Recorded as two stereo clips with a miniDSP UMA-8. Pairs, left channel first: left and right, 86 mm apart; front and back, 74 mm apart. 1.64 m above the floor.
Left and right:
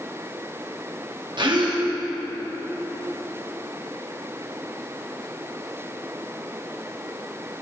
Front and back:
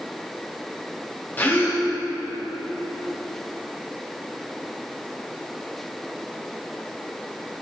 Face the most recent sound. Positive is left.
turn(degrees=-65)